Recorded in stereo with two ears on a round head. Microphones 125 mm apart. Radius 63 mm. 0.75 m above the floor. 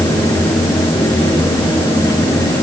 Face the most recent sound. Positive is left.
No sound to turn to.